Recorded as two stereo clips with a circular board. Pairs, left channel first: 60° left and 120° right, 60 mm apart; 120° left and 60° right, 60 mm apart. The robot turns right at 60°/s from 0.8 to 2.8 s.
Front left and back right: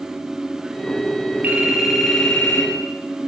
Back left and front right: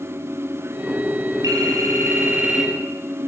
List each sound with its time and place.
1.4 s a phone ringing: 60° right, 6 m; by 2.7 s 15° left, 6 m